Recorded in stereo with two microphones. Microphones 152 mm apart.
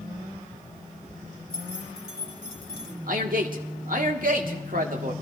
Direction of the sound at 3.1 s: 65° right (ahead or behind).